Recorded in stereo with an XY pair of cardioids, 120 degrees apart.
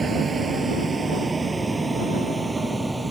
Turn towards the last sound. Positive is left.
turn(degrees=-10)